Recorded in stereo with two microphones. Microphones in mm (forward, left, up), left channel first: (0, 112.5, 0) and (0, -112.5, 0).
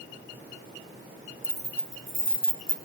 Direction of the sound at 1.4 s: 40° left (ahead or behind).